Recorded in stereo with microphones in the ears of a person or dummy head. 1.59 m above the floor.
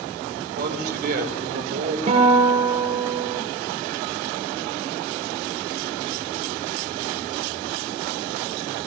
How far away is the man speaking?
About 7 m.